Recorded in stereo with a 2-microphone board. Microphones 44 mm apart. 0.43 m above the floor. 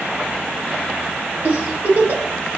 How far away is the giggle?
About 1.1 m.